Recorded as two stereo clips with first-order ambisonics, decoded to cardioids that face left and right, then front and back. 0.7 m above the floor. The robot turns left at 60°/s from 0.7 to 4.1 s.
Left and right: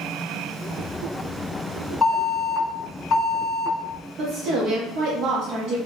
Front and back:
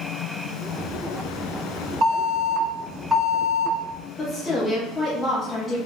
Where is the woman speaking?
65° right, 0.6 m.